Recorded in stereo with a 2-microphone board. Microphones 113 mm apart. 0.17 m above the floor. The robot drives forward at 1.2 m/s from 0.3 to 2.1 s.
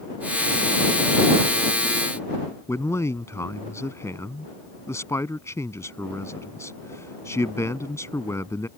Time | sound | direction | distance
2.7 | a man speaking | 25° left (ahead or behind) | ?